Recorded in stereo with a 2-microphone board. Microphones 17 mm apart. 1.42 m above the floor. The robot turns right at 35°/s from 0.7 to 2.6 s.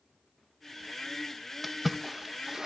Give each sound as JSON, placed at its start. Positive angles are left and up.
{"t": 1.6, "sound": "a splash", "side_deg": 0, "distance_m": 1.0}